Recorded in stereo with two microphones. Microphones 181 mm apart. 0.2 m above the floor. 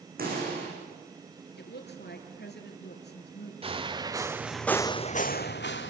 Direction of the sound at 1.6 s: 70° left (ahead or behind).